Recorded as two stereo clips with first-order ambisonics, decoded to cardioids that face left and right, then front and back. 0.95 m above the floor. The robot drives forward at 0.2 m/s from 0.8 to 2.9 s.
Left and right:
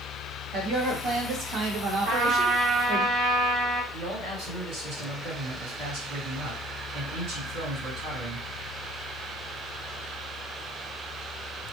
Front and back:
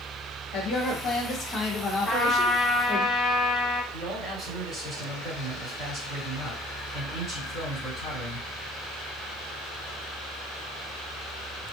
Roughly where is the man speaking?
Right.